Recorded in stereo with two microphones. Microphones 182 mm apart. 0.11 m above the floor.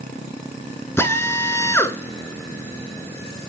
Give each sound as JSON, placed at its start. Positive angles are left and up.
{"t": 1.0, "sound": "a drill", "side_deg": 15, "distance_m": 1.1}